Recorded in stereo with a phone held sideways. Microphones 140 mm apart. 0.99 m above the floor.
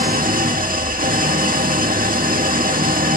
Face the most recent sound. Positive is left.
turn(degrees=-80)